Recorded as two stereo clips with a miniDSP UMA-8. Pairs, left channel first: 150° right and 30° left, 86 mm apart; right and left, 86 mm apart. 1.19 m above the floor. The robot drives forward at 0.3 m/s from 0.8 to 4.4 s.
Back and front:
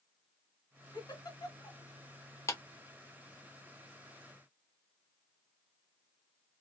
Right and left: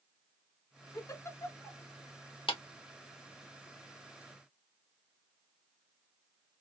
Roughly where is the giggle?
Behind right.